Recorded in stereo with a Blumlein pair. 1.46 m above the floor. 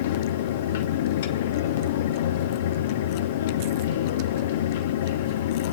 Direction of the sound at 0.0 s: 55° left.